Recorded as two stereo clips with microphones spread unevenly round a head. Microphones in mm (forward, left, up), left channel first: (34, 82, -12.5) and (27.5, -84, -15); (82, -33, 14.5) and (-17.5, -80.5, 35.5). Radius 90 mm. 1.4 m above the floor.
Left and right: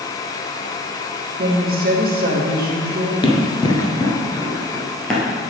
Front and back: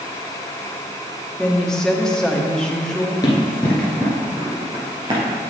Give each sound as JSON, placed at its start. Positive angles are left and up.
{"t": 1.4, "sound": "a woman speaking", "azimuth_deg": -60, "distance_m": 1.5}
{"t": 3.2, "sound": "running footsteps", "azimuth_deg": 80, "distance_m": 1.5}